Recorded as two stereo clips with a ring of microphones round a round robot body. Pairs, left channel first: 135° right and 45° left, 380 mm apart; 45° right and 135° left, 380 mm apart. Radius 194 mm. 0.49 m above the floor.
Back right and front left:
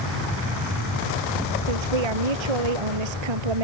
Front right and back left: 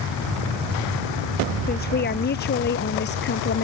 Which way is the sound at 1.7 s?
25° left.